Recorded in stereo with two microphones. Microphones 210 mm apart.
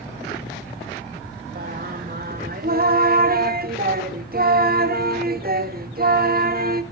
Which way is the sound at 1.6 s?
45° right (ahead or behind).